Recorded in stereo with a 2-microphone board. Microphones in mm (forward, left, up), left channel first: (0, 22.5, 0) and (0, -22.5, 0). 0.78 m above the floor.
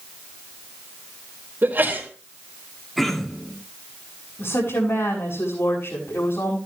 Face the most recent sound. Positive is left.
turn(degrees=65)  # may be behind; listen again after turning